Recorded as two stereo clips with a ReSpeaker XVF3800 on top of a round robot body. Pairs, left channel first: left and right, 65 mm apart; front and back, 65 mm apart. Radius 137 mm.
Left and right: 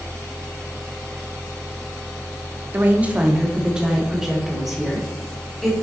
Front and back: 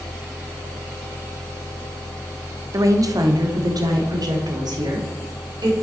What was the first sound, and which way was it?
A woman speaking, 150° right.